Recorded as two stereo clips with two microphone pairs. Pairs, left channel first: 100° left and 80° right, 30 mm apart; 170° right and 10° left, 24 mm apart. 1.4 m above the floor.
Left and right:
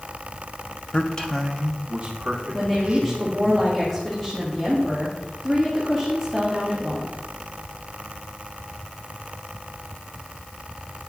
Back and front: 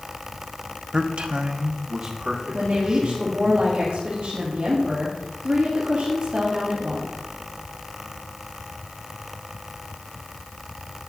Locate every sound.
0.9 s a man speaking: 60° left, 0.7 m; by 3.5 s 35° right, 2.5 m
2.5 s a woman speaking: 15° left, 2.0 m